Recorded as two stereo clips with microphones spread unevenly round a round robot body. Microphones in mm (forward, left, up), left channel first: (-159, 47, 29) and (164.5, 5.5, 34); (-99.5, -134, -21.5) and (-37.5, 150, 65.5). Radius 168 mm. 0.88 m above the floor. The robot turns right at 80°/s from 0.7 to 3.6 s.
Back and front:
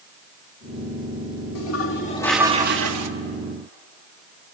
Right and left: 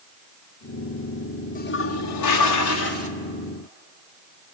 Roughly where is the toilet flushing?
Behind.